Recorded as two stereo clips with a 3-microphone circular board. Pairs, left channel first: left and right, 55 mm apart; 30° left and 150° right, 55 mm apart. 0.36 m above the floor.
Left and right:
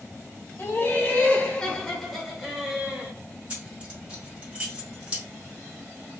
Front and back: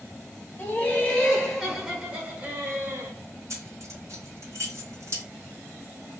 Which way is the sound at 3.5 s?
155° right.